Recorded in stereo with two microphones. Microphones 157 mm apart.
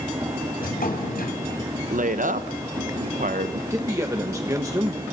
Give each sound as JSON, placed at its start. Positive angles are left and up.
{"t": 0.6, "sound": "a drawer", "side_deg": 80, "distance_m": 3.0}
{"t": 1.9, "sound": "a woman speaking", "side_deg": -60, "distance_m": 0.7}
{"t": 3.7, "sound": "a man speaking", "side_deg": -20, "distance_m": 1.1}